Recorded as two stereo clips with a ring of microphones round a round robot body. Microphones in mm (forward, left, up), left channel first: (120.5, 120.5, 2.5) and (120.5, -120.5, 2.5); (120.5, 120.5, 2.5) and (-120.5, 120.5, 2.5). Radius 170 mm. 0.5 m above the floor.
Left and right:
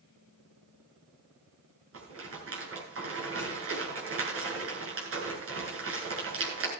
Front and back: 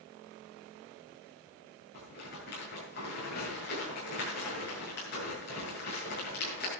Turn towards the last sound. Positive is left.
turn(degrees=-65)